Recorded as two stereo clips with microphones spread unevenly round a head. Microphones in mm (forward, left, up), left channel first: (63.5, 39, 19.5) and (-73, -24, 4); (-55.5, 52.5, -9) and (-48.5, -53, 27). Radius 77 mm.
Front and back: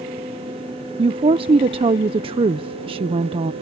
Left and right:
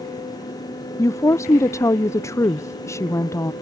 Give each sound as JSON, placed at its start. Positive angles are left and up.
{"t": 1.0, "sound": "a woman speaking", "azimuth_deg": 150}